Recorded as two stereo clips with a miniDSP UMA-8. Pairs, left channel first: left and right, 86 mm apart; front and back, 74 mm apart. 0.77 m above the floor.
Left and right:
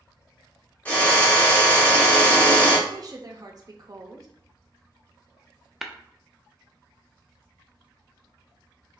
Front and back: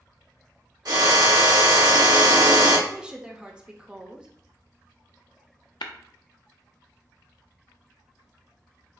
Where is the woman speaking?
105° right, 0.6 m.